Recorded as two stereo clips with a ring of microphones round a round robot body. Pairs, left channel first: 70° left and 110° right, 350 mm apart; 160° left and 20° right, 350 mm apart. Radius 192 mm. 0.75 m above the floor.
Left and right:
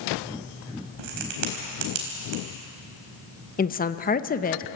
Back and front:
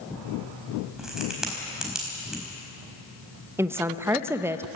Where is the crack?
110° right, 4.5 m.